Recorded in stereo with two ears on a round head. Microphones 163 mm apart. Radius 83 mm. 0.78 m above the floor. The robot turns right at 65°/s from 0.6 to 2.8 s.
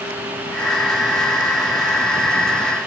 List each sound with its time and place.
Only background noise.